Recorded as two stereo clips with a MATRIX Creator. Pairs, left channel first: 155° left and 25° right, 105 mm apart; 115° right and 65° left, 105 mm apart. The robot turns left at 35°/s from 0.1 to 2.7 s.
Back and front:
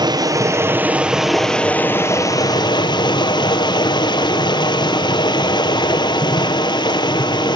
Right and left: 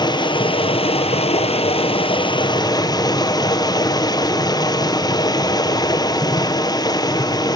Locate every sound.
0.0 s running water: 70° right, 1.8 m; by 7.5 s 160° right, 1.8 m